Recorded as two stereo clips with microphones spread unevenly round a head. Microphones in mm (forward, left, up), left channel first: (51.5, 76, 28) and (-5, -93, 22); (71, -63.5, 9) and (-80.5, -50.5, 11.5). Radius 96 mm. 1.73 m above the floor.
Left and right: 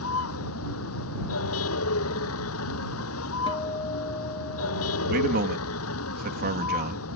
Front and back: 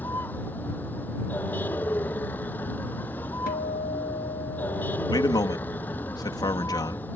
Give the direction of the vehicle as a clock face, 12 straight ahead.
9 o'clock.